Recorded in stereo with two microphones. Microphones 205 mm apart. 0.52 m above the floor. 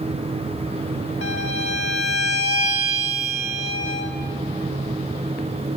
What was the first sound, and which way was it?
A violin, 80° left.